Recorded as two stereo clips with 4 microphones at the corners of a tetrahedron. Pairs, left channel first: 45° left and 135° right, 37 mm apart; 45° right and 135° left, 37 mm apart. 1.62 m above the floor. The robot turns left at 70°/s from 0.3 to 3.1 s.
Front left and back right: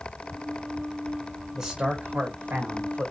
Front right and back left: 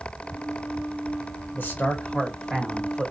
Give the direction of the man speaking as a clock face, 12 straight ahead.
2 o'clock.